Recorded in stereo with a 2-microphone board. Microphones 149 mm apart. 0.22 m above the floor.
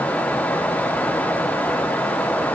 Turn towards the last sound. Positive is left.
No sound to turn to.